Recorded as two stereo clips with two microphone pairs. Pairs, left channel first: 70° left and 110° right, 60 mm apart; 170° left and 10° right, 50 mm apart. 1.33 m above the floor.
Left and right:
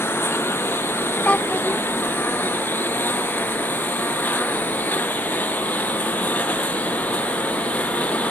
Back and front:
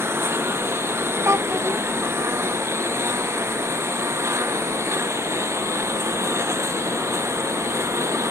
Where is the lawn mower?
15° left; by 8.3 s straight ahead.